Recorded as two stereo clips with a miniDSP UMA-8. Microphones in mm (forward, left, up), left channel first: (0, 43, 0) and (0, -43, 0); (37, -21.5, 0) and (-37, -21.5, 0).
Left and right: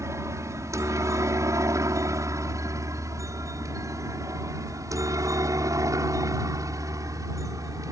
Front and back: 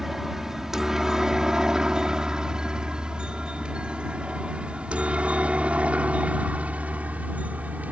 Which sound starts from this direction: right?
A helicopter, at 0.0 s.